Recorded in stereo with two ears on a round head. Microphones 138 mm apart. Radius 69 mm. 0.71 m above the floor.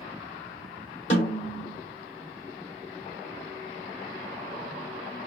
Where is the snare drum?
45° left (ahead or behind), 1.8 m.